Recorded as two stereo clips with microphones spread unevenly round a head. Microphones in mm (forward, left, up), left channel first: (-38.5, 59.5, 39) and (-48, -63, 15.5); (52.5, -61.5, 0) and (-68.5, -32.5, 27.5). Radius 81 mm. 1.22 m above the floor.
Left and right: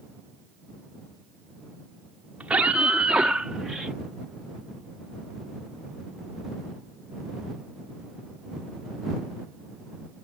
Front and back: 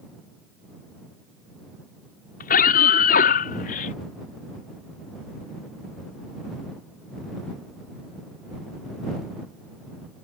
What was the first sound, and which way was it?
A scream, 10° right.